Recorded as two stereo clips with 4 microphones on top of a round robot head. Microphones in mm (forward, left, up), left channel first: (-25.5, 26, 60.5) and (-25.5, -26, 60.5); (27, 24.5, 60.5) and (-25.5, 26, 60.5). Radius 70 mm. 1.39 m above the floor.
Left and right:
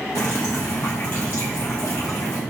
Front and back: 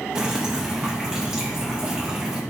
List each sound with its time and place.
0.1 s dripping: 110° left, 0.7 m